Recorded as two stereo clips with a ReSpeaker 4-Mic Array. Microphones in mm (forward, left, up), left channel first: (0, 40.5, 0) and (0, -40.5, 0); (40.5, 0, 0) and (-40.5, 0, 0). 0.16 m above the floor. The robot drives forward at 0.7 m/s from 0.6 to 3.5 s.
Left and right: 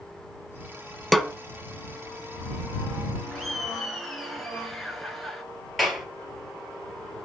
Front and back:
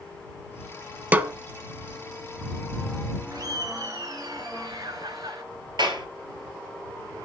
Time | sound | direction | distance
1.1 | a snare drum | 175° left | 0.7 m
3.3 | laughter | straight behind | 2 m
5.8 | a clap | straight behind | 3 m